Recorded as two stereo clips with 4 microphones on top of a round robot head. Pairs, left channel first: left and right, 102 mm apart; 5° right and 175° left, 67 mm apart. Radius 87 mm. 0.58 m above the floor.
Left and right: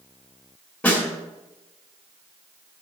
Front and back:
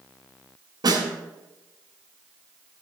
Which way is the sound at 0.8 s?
165° left.